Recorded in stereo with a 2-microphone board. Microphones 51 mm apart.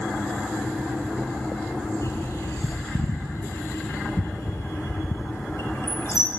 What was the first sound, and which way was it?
A bird, 70° left (ahead or behind).